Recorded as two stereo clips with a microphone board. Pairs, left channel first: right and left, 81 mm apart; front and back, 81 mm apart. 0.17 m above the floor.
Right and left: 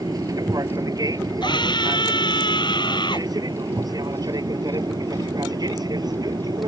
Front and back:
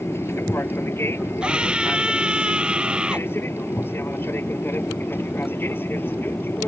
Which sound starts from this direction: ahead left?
An aircraft, at 0.0 s.